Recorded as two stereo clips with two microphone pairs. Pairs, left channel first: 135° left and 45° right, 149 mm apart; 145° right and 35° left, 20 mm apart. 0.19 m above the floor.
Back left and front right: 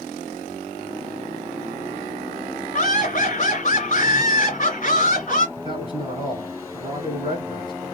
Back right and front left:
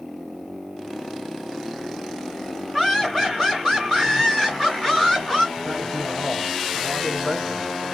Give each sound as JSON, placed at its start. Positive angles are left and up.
{"t": 2.7, "sound": "laughter", "azimuth_deg": 120, "distance_m": 1.6}
{"t": 5.6, "sound": "a man speaking", "azimuth_deg": -85, "distance_m": 1.3}